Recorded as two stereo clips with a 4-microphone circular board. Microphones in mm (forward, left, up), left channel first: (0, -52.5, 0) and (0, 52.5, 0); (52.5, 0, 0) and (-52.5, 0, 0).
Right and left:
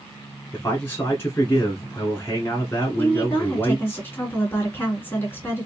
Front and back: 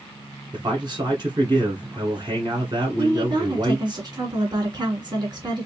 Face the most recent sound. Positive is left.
turn(degrees=-155)